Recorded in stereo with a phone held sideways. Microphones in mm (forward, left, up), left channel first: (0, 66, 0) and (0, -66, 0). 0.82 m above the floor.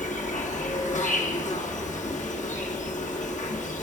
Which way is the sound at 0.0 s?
70° left (ahead or behind).